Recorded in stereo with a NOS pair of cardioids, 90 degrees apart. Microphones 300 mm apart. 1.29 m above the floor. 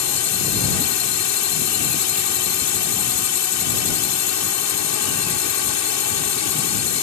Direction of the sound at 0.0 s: 70° left.